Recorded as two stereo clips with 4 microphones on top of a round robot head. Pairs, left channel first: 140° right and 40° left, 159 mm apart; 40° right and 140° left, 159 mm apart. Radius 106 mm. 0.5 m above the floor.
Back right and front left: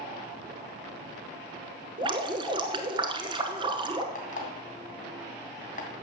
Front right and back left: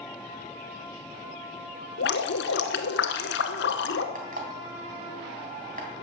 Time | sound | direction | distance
2.0 | dripping | 25° right | 1.0 m
4.2 | an alarm clock | straight behind | 3 m